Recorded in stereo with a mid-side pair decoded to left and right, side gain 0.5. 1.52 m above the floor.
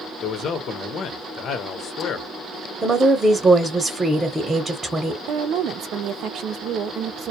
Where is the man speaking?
55° left, 0.8 m.